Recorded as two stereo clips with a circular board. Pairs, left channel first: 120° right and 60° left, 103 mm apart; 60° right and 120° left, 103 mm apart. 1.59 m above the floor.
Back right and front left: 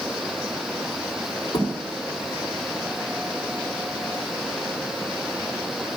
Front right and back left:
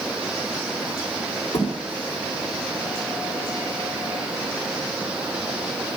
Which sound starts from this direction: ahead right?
A thud, at 1.5 s.